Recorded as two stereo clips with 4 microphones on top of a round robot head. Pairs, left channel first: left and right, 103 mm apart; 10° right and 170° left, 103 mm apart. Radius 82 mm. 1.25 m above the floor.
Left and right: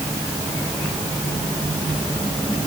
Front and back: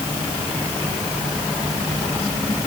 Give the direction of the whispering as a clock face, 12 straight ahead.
I don't hear whispering.